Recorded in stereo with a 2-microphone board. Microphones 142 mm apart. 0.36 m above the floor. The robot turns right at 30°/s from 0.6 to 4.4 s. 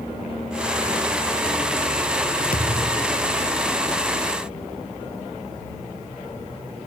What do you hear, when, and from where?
2.5 s a thud: 85° left; by 3.3 s 70° left (ahead or behind)